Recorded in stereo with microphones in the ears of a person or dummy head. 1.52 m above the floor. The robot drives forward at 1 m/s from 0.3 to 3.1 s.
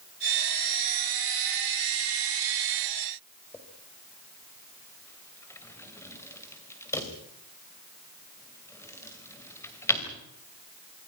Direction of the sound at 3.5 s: 15° left (ahead or behind).